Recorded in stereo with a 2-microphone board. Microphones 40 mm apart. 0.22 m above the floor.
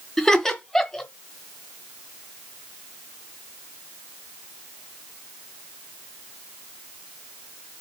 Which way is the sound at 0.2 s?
15° left (ahead or behind).